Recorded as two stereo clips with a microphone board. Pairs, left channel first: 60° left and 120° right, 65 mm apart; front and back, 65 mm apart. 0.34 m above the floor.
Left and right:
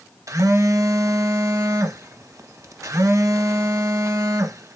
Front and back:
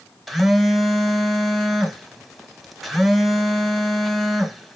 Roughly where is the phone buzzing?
Right.